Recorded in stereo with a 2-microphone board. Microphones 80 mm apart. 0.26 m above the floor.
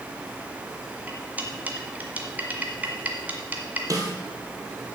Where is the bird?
I don't hear a bird.